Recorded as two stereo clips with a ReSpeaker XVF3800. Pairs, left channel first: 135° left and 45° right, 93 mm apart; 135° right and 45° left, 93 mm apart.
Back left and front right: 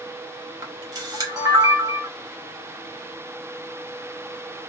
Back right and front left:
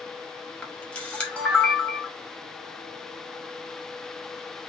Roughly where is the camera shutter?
Ahead right.